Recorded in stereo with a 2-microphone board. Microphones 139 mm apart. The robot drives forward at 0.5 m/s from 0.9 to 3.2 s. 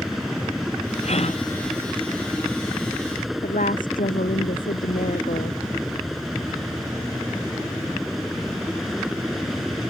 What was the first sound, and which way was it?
A helicopter, centre (ahead or behind).